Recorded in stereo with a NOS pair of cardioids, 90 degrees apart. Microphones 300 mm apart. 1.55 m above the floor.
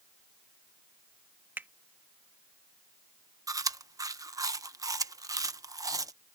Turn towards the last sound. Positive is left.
turn(degrees=-10)